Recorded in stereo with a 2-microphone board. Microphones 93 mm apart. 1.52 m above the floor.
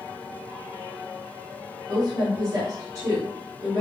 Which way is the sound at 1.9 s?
50° right (ahead or behind).